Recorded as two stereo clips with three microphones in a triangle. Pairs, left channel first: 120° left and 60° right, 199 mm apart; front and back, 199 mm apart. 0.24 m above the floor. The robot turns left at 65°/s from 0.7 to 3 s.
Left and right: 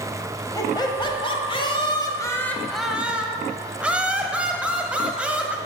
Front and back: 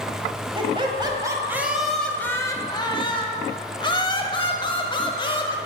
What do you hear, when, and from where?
0.6 s laughter: 165° left, 1.0 m; by 5.6 s 15° left, 1.0 m